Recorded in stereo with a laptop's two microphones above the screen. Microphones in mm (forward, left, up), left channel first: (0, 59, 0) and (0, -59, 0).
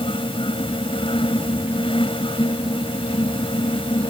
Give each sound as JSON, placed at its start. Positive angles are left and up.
{"t": 0.0, "sound": "a fan", "side_deg": 50}